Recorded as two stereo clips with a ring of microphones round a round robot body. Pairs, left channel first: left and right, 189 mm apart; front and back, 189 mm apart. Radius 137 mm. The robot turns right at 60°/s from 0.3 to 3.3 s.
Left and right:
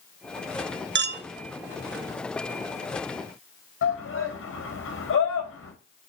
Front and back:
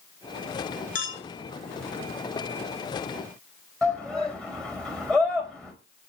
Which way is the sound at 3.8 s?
85° left.